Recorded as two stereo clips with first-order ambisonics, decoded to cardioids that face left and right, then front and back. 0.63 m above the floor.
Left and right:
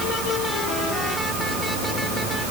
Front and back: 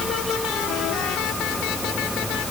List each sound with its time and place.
Only background noise.